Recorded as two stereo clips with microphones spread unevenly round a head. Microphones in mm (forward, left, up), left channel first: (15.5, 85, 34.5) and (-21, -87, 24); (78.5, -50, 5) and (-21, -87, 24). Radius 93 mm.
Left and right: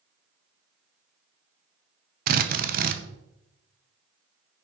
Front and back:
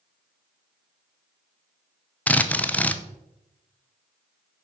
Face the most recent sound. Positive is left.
turn(degrees=-60)